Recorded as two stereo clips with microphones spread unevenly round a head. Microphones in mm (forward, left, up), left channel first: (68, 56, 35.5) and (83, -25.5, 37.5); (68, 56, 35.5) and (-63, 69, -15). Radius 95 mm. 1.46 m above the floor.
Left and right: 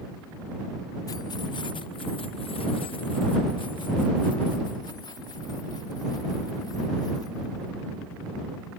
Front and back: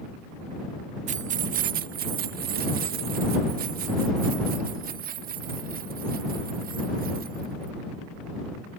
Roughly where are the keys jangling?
Behind left.